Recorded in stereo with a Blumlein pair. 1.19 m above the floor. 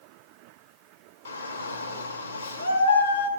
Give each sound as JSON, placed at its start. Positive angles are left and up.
{"t": 1.2, "sound": "a shout", "azimuth_deg": 70, "distance_m": 1.9}